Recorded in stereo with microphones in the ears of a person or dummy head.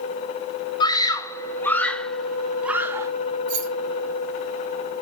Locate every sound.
0.8 s a scream: 25° left (ahead or behind), 1.9 m; by 3.1 s 15° right (ahead or behind), 1.4 m
3.5 s keys jangling: 45° right (ahead or behind), 3 m